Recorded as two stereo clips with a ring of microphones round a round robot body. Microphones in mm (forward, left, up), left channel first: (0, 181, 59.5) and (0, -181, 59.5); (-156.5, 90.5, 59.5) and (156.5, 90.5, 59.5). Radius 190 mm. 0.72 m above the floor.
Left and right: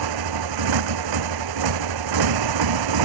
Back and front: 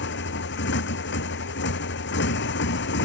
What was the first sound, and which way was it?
A motorcycle, 120° right.